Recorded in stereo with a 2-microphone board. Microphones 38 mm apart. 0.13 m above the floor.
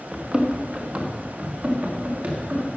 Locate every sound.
0.1 s running footsteps: 20° right (ahead or behind), 2.5 m; by 2.7 s 55° right (ahead or behind), 6 m